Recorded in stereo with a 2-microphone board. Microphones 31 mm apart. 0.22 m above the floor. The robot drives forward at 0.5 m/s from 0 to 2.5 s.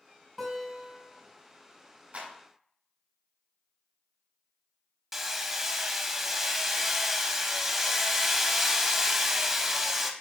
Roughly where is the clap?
Right.